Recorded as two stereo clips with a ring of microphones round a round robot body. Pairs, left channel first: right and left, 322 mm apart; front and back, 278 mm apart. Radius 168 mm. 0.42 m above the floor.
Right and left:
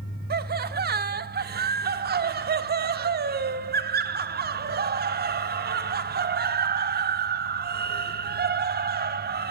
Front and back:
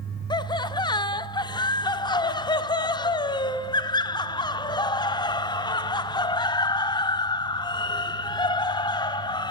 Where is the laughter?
60° left, 0.9 m.